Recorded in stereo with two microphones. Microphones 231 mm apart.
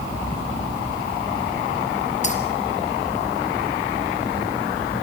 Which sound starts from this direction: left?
Keys jangling, at 2.2 s.